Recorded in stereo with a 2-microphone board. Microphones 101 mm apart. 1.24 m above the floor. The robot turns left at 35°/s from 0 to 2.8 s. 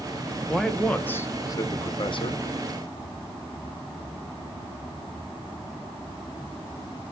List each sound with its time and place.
0.5 s a man speaking: straight behind, 0.8 m; by 2.4 s 115° left, 0.8 m